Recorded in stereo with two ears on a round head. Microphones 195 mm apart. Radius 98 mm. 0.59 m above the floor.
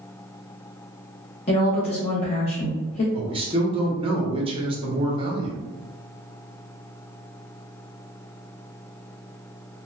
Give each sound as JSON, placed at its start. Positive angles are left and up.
{"t": 1.5, "sound": "a woman speaking", "side_deg": 30, "distance_m": 0.6}
{"t": 3.1, "sound": "a man speaking", "side_deg": -25, "distance_m": 0.6}